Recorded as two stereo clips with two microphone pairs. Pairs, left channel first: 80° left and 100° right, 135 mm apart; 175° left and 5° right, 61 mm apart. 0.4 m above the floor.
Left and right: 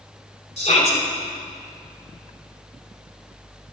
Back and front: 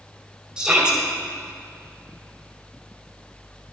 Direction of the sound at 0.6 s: 65° left.